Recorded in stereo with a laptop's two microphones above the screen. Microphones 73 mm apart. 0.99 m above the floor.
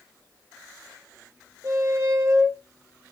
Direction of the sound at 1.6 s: 50° right (ahead or behind).